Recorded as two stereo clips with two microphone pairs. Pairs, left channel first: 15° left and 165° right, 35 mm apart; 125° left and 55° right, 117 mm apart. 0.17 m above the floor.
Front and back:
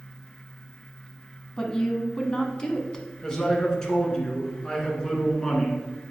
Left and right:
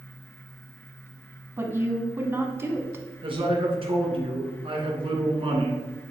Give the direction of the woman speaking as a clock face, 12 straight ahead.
1 o'clock.